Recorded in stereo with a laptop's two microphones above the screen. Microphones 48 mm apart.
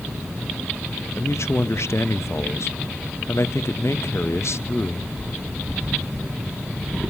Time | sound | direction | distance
1.2 | a man speaking | 65° left (ahead or behind) | 0.9 m